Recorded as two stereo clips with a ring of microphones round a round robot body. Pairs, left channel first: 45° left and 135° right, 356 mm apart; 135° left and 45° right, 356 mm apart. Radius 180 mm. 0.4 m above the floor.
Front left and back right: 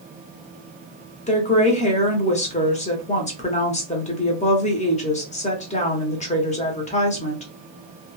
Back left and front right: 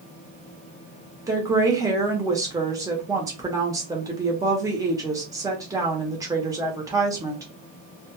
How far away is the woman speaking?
About 0.8 m.